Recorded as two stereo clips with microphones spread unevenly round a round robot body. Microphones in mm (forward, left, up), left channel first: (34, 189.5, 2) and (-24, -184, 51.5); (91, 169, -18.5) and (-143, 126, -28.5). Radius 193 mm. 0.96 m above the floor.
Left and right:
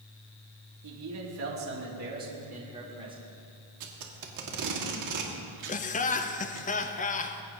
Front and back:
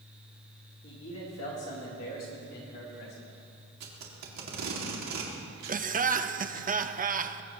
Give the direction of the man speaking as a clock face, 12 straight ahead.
2 o'clock.